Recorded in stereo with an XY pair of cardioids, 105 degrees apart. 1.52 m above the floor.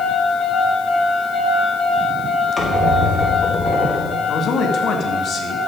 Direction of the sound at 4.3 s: 60° left.